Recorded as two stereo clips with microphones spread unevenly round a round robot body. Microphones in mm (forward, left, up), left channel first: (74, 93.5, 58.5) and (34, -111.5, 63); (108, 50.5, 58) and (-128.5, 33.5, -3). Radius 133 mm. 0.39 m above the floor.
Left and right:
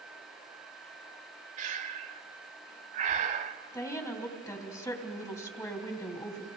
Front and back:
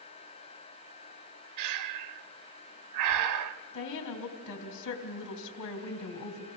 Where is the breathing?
165° right, 0.6 m.